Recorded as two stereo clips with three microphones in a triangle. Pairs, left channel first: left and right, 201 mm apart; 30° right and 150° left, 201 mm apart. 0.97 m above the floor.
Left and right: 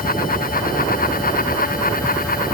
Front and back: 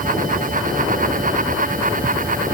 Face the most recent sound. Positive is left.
No sound to turn to.